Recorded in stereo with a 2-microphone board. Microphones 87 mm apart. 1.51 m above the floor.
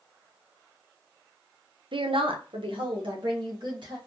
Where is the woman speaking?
65° right (ahead or behind), 0.6 m; by 4.0 s 60° right (ahead or behind), 1.8 m.